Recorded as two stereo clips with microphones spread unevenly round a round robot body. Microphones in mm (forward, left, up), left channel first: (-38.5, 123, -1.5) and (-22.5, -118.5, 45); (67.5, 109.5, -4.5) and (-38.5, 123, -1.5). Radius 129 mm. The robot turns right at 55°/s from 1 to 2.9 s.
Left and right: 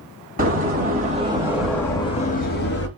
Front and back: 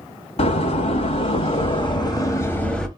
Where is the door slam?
25° right, 1.6 m; by 2.9 s 80° left, 1.6 m.